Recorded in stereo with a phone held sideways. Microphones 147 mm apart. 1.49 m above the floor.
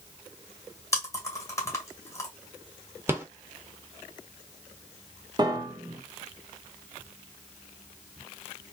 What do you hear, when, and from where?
0.9 s chewing: 20° left (ahead or behind), 1.7 m
3.1 s a rattle: 15° right (ahead or behind), 1.1 m
5.4 s a piano: 30° right (ahead or behind), 0.9 m